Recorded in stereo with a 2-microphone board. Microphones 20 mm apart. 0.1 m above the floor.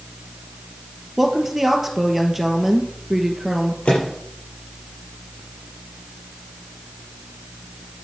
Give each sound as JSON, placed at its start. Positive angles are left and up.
{"t": 1.2, "sound": "a woman speaking", "side_deg": -10, "distance_m": 2.0}
{"t": 3.9, "sound": "a microwave", "side_deg": 80, "distance_m": 6.0}